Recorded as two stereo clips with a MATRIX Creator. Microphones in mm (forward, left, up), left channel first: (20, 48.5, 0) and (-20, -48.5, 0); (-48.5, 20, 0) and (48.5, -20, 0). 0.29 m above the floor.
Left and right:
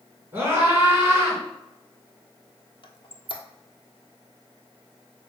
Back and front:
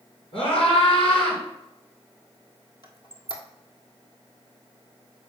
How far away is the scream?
About 3.5 m.